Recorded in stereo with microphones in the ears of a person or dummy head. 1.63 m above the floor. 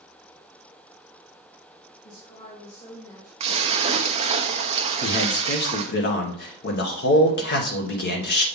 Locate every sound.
2.0 s a woman speaking: 40° left (ahead or behind), 2.5 m; by 3.3 s 10° left (ahead or behind), 1.9 m
3.4 s a splash: 30° right (ahead or behind), 0.7 m
5.0 s a man speaking: 55° left (ahead or behind), 1.4 m